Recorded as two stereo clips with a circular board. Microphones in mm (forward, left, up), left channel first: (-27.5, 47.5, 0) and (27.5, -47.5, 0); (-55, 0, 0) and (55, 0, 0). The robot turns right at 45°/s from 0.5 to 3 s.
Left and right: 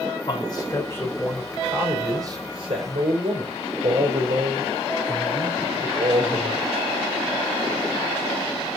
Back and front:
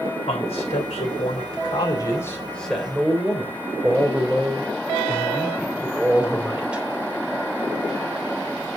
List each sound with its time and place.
0.3 s a man speaking: 165° left, 3 m; by 6.8 s 80° right, 3 m